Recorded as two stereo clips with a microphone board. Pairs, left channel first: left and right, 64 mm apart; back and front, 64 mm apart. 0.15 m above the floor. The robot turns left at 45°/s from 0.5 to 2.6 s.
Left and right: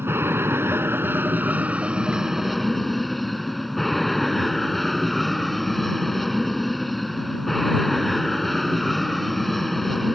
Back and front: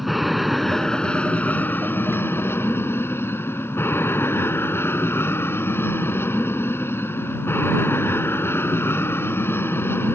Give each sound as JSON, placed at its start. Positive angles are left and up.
{"t": 0.0, "sound": "an aircraft", "azimuth_deg": -85}